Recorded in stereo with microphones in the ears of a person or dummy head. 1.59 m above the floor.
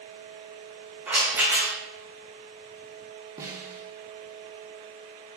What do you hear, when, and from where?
1.1 s a rattle: 10° right (ahead or behind), 1.6 m
3.4 s a snare drum: 20° right (ahead or behind), 1.2 m